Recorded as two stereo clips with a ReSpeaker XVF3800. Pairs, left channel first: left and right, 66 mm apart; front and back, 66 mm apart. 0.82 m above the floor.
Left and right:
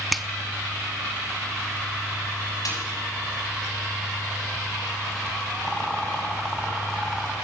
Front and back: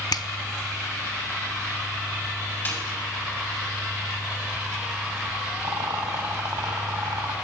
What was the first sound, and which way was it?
A finger snap, straight ahead.